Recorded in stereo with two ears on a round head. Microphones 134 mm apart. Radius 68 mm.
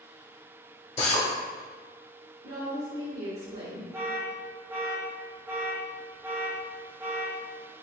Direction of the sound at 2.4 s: 75° right (ahead or behind).